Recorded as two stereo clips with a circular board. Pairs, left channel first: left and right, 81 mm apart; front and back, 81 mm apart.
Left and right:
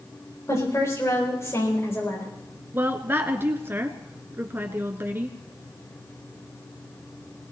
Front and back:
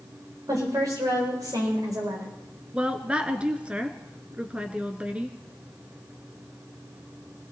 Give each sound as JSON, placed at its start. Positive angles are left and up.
{"t": 0.5, "sound": "a woman speaking", "azimuth_deg": 140, "distance_m": 8.0}
{"t": 2.7, "sound": "a woman speaking", "azimuth_deg": -115, "distance_m": 1.2}